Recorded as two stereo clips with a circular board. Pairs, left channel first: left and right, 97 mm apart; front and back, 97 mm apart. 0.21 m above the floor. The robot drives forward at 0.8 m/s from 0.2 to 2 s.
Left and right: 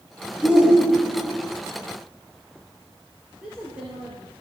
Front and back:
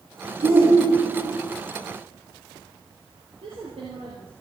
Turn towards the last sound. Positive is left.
turn(degrees=-170)